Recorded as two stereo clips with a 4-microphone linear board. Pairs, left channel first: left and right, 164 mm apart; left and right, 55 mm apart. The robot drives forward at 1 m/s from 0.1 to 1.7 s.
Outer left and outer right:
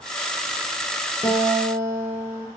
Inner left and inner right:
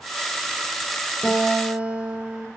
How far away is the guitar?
About 6 m.